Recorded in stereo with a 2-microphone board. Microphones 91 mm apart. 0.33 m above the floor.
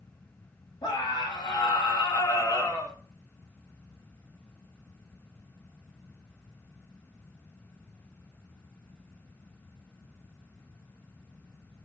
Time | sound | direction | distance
0.8 | a scream | 55° left (ahead or behind) | 2.5 m